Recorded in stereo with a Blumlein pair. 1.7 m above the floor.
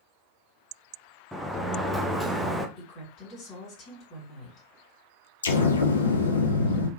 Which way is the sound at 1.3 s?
Straight ahead.